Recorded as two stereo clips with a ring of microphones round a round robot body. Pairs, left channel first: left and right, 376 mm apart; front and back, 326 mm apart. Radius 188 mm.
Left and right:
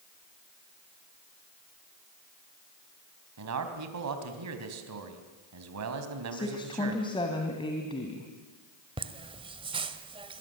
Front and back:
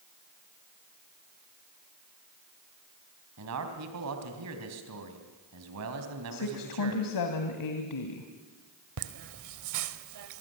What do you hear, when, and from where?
3.4 s a man speaking: 135° right, 3 m
6.3 s a woman speaking: 15° left, 2.5 m
9.0 s laughter: 165° right, 1.7 m